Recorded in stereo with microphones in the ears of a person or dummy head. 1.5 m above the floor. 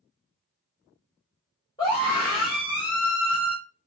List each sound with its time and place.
1.8 s a scream: 15° left (ahead or behind), 1.1 m